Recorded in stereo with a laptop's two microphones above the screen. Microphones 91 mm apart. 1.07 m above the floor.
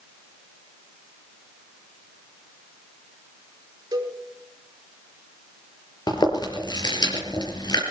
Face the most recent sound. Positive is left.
turn(degrees=50)  # may be behind; listen again after turning